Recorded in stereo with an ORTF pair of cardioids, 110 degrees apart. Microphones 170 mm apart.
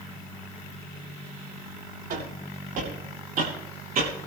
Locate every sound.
2.1 s footsteps: 60° right, 9.5 m; by 4.3 s 55° right, 8 m